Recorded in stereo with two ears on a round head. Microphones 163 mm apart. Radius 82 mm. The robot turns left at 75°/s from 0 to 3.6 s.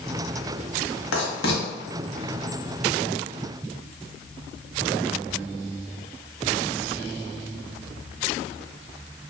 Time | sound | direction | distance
1.1 | writing | 85° left | 0.9 m